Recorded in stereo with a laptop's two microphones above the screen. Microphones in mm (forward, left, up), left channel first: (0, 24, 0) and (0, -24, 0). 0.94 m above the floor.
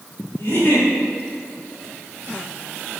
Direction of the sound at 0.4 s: 55° left (ahead or behind).